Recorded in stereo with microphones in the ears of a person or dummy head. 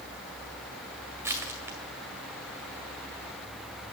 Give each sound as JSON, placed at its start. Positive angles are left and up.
{"t": 1.2, "sound": "crushing", "side_deg": -15, "distance_m": 1.9}